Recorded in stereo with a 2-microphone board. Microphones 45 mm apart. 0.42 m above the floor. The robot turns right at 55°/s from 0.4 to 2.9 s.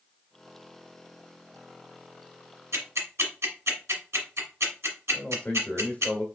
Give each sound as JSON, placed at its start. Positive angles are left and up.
{"t": 2.7, "sound": "ticking", "side_deg": -85, "distance_m": 1.7}
{"t": 5.1, "sound": "a man speaking", "side_deg": 25, "distance_m": 1.4}